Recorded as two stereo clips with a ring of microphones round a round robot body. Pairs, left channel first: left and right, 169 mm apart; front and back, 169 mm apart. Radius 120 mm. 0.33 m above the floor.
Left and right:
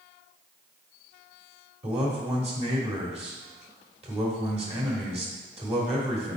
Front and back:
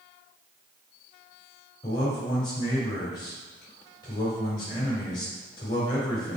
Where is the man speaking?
55° right, 1.3 m.